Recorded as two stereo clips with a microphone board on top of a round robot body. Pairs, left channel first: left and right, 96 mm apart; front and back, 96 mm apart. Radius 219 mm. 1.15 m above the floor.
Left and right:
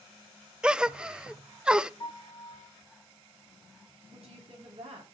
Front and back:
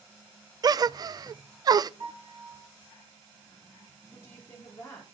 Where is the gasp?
165° right, 0.5 m.